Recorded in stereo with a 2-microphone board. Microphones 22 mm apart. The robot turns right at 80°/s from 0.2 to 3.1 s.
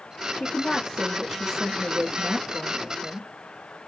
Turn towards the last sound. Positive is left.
turn(degrees=-15)